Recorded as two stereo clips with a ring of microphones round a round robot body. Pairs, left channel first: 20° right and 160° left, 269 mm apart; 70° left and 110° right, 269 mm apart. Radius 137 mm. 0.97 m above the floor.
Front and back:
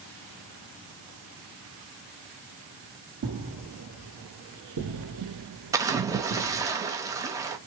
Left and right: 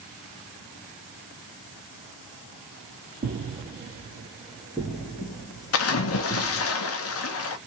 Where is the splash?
80° left, 0.8 m.